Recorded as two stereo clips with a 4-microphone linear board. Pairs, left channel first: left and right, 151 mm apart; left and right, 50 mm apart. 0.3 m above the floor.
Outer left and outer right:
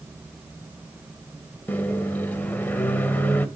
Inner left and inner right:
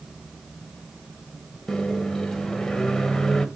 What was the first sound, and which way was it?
A microwave, 10° left (ahead or behind).